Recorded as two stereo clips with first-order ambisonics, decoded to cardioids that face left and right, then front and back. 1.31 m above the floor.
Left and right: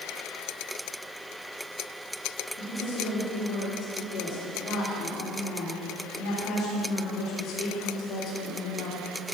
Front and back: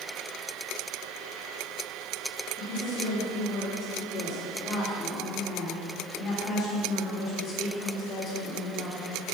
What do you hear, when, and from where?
2.6 s a woman speaking: 65° left, 3 m